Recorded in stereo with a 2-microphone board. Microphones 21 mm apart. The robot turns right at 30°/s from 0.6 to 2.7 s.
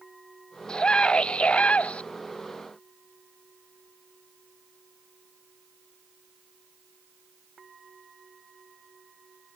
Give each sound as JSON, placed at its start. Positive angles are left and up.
{"t": 0.7, "sound": "a scream", "azimuth_deg": 35}